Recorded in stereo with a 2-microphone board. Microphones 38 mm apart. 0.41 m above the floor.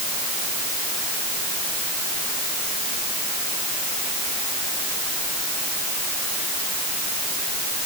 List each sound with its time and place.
Only background noise.